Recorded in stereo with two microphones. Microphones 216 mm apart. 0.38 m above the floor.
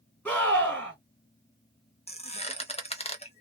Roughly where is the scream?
Centre.